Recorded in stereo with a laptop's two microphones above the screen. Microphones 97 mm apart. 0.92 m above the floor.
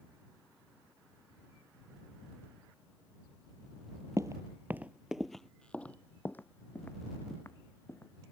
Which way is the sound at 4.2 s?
35° right (ahead or behind).